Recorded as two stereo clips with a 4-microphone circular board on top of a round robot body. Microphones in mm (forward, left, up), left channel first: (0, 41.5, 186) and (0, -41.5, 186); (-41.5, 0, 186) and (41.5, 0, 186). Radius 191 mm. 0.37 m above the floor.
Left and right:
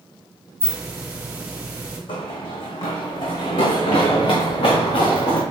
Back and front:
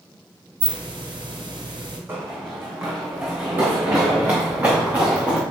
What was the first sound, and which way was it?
A hiss, 25° right.